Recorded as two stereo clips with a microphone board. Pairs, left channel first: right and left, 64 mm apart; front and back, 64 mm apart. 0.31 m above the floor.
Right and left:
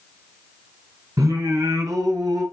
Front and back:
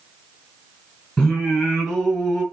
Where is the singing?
70° left, 4 m.